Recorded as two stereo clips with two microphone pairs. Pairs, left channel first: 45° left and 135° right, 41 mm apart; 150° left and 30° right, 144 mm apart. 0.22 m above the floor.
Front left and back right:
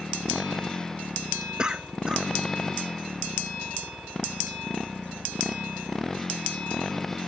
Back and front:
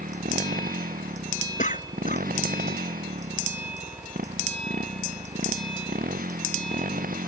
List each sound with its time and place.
0.0 s a motorcycle: 30° right; by 7.3 s 40° right
1.6 s a cough: 155° left